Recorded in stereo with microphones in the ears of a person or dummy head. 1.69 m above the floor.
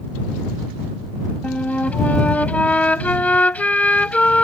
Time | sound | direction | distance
1.4 | a flute | 10° left (ahead or behind) | ?